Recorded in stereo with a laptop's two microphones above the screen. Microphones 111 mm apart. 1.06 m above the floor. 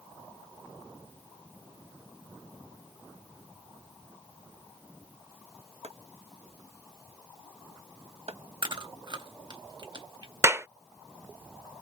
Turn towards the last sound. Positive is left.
turn(degrees=-25)  # may be behind; listen again after turning